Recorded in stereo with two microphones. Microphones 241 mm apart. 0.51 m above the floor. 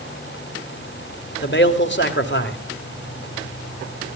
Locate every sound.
1.4 s a man speaking: 50° left (ahead or behind), 2 m